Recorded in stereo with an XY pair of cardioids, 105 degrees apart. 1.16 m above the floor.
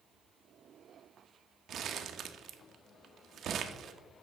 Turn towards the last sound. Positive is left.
turn(degrees=-55)